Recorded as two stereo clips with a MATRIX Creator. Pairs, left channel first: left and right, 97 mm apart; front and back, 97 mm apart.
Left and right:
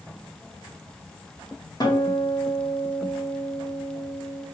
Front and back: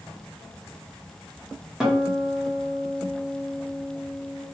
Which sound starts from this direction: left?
A guitar, at 1.8 s.